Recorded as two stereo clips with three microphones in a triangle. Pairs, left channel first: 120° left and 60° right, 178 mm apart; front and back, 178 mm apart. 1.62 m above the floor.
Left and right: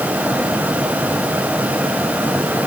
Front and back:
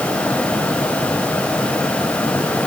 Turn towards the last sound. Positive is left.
No sound to turn to.